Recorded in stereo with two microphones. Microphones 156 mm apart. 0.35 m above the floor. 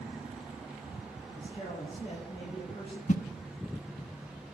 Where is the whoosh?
55° left (ahead or behind), 0.7 m.